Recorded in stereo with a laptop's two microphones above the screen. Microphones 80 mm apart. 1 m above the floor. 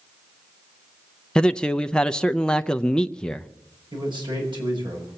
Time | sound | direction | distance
1.4 | a man speaking | 10° left (ahead or behind) | 0.6 m
3.9 | a man speaking | 70° right (ahead or behind) | 6.5 m